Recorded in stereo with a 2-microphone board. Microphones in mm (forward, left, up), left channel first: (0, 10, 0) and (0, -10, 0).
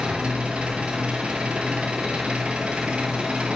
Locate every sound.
0.0 s an engine running: 75° right (ahead or behind), 1.2 m